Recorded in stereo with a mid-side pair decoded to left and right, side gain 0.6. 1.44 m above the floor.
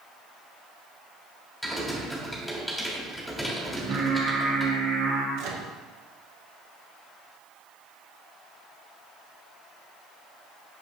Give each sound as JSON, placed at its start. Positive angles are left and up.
{"t": 1.6, "sound": "typing on a keyboard", "azimuth_deg": 0, "distance_m": 3.0}
{"t": 3.7, "sound": "singing", "azimuth_deg": -50, "distance_m": 1.9}
{"t": 5.4, "sound": "a microwave", "azimuth_deg": -65, "distance_m": 1.2}